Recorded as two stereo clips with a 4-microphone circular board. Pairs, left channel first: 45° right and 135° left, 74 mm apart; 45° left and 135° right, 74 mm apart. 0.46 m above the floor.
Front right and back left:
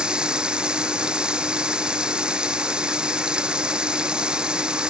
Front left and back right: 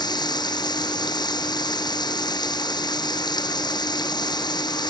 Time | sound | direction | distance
0.0 | running water | 60° left | ?